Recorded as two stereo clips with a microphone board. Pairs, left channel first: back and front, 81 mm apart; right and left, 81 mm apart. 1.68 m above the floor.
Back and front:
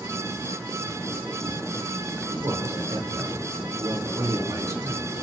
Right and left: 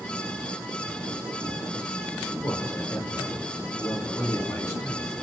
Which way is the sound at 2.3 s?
40° right.